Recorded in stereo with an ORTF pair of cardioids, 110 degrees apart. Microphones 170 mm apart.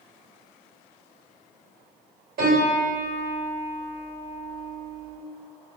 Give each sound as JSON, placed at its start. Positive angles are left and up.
{"t": 2.4, "sound": "a piano", "azimuth_deg": -60, "distance_m": 1.8}